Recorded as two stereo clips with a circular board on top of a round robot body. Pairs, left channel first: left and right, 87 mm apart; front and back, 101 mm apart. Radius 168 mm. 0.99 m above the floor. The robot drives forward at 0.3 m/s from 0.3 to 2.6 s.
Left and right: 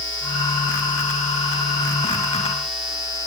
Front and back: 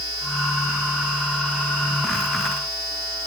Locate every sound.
Only background noise.